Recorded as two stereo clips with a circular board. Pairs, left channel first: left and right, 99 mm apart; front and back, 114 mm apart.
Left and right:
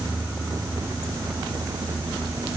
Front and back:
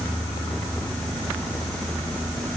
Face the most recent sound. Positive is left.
No sound to turn to.